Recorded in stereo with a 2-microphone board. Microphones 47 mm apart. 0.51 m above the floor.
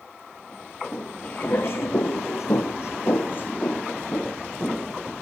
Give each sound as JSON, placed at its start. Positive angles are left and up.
{"t": 0.9, "sound": "footsteps", "side_deg": 35, "distance_m": 3.0}